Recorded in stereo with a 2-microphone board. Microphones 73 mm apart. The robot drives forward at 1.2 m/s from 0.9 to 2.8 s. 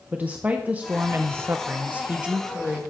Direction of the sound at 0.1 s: 20° right (ahead or behind).